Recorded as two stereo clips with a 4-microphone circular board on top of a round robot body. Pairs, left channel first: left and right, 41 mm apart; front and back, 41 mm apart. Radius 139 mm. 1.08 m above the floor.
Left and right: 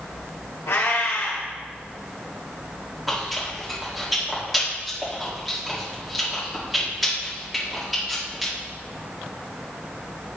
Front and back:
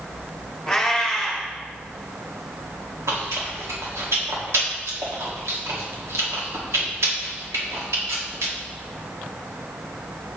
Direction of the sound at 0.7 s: 85° left.